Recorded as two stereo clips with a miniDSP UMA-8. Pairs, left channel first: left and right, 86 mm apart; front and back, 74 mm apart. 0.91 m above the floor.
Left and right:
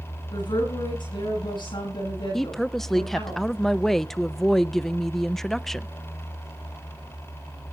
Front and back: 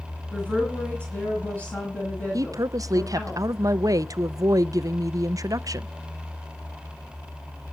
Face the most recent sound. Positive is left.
turn(degrees=175)